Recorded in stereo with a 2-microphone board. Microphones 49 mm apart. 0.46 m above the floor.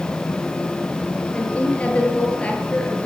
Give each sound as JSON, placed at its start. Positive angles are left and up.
{"t": 1.3, "sound": "a woman speaking", "side_deg": 25, "distance_m": 9.0}